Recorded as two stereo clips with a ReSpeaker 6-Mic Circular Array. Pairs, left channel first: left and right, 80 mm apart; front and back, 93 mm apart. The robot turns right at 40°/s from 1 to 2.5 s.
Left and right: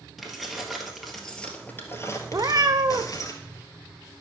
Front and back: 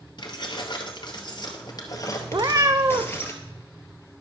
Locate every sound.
0.2 s keys jangling: straight ahead, 1.7 m; by 3.3 s 60° left, 1.7 m
2.3 s a cat meowing: 140° right, 0.9 m; by 3.2 s 130° right, 0.9 m